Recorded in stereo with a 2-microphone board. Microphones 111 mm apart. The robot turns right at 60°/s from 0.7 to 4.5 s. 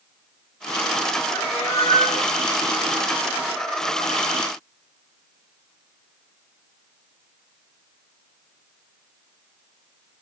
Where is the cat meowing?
80° left, 3.5 m; by 2.3 s 140° left, 3.5 m.